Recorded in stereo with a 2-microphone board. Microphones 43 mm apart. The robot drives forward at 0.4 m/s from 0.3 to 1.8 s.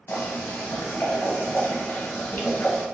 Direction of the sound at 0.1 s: 60° left (ahead or behind).